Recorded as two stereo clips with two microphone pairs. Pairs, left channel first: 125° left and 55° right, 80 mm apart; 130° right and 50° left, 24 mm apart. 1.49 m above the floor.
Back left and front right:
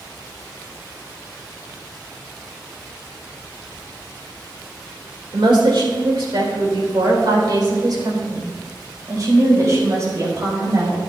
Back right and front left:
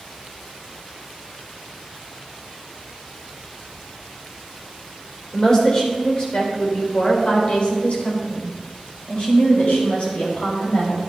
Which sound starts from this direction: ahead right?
A woman speaking, at 5.3 s.